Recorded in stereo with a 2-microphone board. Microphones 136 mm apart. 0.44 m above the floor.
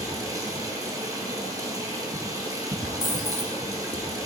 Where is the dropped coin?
75° left (ahead or behind), 1.4 m.